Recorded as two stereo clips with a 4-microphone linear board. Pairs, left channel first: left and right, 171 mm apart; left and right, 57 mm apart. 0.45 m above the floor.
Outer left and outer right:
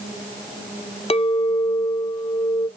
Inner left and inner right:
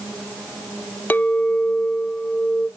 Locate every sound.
1.1 s a clink: 35° left (ahead or behind), 0.5 m